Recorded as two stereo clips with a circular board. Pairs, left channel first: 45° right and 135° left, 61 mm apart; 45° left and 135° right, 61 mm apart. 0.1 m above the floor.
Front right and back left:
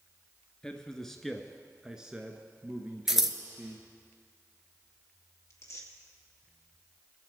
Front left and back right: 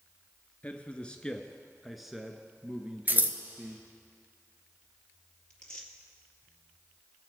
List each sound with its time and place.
0.6 s a man speaking: 15° left, 1.2 m; by 3.9 s 175° left, 1.6 m
3.1 s scissors: 145° right, 1.0 m
5.5 s tearing paper: 30° right, 2.5 m